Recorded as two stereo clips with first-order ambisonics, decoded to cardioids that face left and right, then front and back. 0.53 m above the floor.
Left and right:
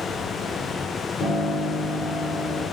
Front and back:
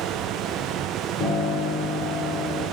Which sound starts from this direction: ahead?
A piano, at 1.2 s.